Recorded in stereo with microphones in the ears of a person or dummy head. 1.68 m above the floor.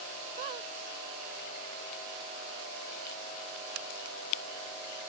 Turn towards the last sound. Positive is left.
turn(degrees=-20)  # may be behind; listen again after turning